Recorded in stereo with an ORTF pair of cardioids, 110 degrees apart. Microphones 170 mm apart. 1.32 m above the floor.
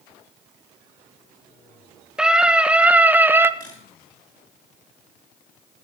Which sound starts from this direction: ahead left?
A camera shutter, at 3.6 s.